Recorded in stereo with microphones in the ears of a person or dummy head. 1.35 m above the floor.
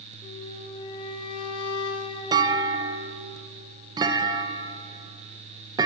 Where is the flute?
30° left (ahead or behind), 1.0 m.